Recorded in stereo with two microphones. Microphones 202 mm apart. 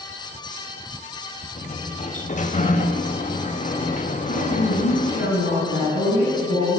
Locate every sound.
1.6 s a sliding door: 40° left (ahead or behind), 1.6 m
4.3 s a woman speaking: 75° left (ahead or behind), 9 m